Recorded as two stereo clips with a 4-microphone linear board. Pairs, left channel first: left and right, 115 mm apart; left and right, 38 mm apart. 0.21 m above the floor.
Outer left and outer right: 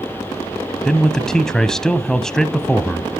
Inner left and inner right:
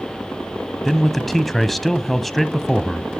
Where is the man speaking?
5° left (ahead or behind), 1.1 m.